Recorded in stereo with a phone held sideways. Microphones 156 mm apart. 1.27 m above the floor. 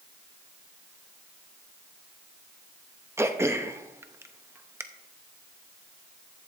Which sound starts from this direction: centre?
Throat clearing, at 3.2 s.